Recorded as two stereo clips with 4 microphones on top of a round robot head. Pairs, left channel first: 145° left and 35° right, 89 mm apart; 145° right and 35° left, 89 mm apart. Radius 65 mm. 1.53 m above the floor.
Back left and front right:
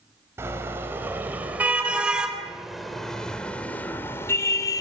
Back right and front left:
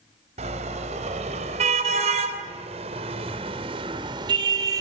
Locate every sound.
0.4 s a car horn: 30° left, 4.5 m; by 4.8 s 90° left, 2.5 m